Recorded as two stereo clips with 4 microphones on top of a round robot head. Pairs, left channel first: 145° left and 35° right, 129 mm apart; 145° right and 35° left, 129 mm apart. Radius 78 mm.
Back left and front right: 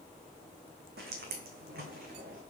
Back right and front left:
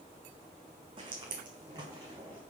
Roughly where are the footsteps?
Ahead.